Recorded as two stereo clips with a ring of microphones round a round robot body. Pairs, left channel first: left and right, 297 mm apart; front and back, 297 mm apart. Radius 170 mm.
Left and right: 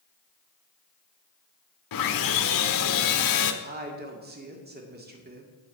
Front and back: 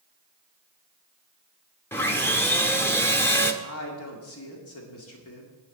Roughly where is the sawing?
Left.